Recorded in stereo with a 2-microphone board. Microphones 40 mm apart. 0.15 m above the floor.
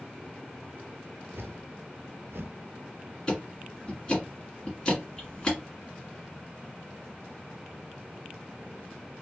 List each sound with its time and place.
1.3 s a whoosh: 75° right (ahead or behind), 0.5 m
3.3 s ticking: 20° left (ahead or behind), 1.6 m